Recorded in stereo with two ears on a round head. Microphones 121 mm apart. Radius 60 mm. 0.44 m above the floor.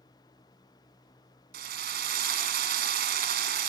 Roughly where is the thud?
I don't hear a thud.